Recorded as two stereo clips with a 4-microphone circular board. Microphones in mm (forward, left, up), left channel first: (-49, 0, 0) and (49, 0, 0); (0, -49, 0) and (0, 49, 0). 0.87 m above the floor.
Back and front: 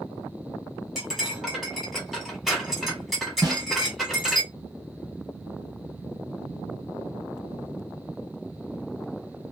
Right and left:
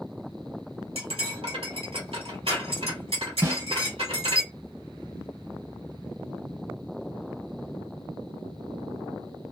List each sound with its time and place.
0.9 s cutlery clinking: 90° left, 1.5 m
3.4 s a snare drum: 35° left, 1.2 m